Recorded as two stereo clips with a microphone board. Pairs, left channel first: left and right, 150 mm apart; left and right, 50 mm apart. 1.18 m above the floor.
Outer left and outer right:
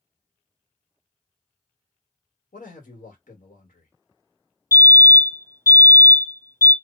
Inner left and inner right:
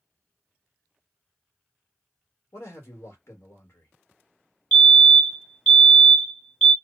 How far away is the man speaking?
About 1.4 m.